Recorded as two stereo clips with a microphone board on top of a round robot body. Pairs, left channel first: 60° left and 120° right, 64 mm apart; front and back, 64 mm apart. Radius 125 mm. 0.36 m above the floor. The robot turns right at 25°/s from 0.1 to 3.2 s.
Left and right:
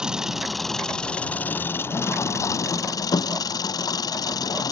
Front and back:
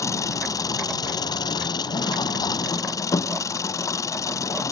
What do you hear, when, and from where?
0.0 s an engine running: 40° right; by 4.7 s 40° left